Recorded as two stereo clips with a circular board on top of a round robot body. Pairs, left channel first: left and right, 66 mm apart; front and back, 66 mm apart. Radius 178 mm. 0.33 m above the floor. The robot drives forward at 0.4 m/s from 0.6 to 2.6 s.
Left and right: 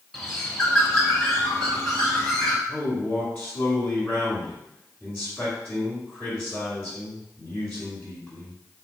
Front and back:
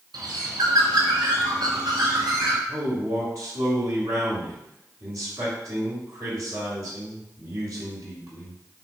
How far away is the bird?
About 0.9 m.